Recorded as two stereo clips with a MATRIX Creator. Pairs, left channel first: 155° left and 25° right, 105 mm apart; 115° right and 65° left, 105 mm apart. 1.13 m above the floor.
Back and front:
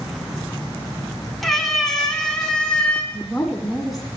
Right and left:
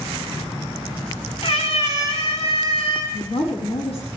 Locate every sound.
1.4 s a cat meowing: 115° right, 4 m; by 3.0 s 125° right, 4 m
3.1 s a woman speaking: 110° right, 8 m